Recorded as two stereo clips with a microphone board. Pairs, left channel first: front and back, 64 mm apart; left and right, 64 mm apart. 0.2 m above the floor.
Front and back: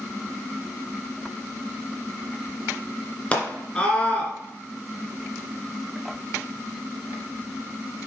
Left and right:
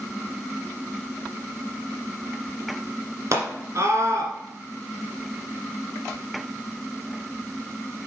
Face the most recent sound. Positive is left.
turn(degrees=-70)